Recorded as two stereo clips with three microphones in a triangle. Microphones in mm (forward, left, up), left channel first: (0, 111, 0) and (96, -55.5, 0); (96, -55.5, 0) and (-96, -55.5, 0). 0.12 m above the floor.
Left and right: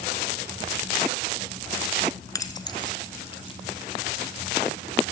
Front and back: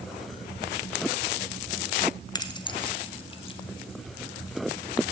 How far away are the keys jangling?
About 1.2 m.